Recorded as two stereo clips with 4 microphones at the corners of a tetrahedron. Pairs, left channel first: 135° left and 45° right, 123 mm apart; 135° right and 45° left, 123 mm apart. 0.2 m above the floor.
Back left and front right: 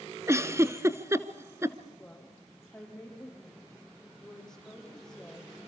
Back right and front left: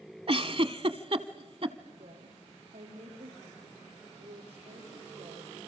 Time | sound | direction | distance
0.3 | a giggle | 15° left | 1.0 m
2.0 | a woman speaking | 50° left | 8 m